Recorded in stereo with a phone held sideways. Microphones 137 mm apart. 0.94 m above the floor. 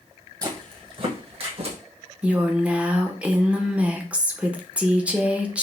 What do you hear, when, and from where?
0.4 s footsteps: 25° right (ahead or behind), 1.3 m; by 1.8 s 50° right (ahead or behind), 1.7 m
2.2 s a woman speaking: 10° right (ahead or behind), 0.7 m